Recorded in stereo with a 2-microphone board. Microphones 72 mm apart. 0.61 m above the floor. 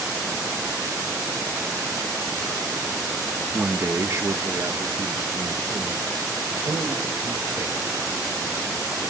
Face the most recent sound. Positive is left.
turn(degrees=-70)  # may be behind; listen again after turning